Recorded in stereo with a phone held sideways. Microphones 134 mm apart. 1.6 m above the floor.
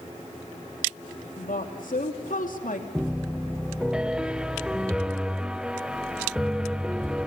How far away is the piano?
About 0.6 m.